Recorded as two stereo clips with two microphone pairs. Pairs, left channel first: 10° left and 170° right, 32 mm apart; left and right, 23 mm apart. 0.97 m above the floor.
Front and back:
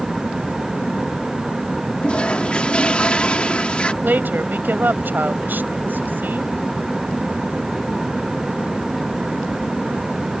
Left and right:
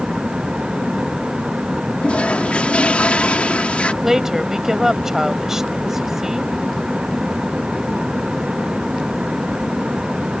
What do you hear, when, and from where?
2.0 s a toilet flushing: 65° left
4.0 s a woman speaking: 160° right